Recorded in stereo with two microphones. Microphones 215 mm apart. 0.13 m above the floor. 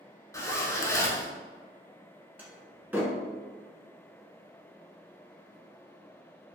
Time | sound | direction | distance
0.3 | a zipper | 15° left (ahead or behind) | 0.6 m
2.4 | a door slam | 10° right (ahead or behind) | 0.9 m